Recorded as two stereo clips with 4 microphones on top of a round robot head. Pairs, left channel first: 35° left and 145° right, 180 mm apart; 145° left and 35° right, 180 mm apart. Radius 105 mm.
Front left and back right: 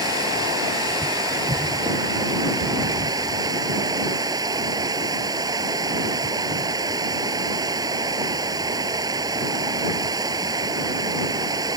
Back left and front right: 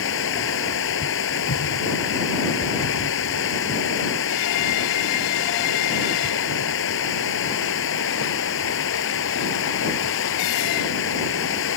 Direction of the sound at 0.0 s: 145° left.